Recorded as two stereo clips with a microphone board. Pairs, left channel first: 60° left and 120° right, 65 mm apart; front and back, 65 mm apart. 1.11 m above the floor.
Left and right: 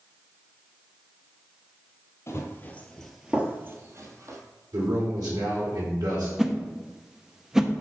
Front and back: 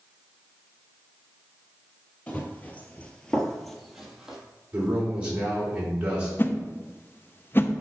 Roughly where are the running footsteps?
Ahead left.